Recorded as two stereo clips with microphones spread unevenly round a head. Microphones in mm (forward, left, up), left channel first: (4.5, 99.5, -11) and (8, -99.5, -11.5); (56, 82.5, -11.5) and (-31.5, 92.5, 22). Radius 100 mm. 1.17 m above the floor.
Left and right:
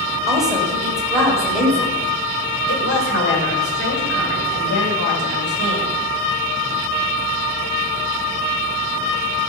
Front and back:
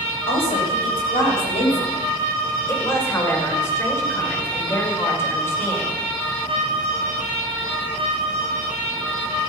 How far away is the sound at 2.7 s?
About 5.5 m.